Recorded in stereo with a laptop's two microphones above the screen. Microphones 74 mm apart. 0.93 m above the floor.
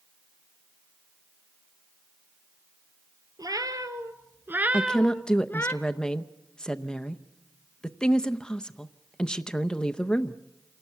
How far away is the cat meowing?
About 1.9 m.